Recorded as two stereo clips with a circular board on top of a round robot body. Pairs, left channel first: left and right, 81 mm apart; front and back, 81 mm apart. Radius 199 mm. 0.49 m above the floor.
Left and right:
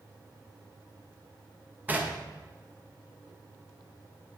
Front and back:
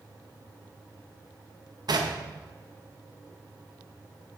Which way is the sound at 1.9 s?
155° right.